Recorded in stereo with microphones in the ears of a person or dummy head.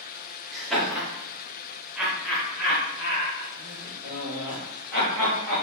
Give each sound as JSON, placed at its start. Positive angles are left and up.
{"t": 0.5, "sound": "laughter", "side_deg": 0, "distance_m": 0.7}